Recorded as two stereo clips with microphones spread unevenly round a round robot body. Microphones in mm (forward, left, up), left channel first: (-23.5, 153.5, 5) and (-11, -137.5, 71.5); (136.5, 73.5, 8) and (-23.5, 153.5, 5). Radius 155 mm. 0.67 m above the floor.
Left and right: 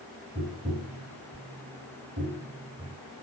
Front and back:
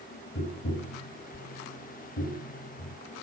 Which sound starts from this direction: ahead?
Tapping, at 0.3 s.